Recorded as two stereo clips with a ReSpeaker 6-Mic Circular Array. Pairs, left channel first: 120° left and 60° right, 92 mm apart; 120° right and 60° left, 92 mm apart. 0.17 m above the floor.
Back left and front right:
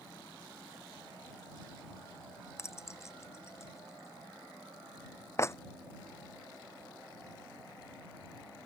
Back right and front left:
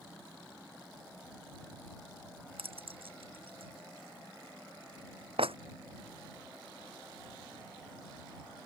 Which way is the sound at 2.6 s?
60° left.